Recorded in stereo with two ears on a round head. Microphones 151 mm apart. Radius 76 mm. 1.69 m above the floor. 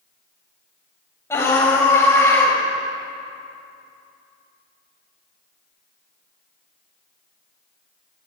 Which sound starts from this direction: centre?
A scream, at 1.3 s.